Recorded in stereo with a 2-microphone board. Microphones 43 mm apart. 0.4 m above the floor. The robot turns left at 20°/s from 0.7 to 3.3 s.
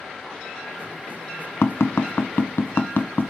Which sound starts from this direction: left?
Tapping, at 1.6 s.